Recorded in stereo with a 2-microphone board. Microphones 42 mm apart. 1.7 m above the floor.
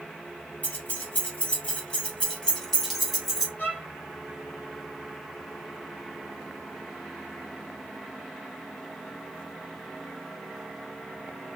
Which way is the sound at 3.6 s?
50° left (ahead or behind).